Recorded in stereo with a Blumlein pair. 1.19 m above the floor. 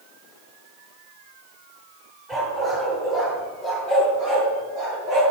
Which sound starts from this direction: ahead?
A dog barking, at 2.3 s.